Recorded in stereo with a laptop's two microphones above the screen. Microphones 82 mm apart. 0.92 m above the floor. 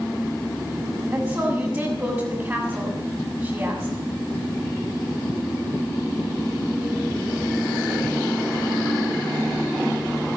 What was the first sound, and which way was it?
A woman speaking, 35° right (ahead or behind).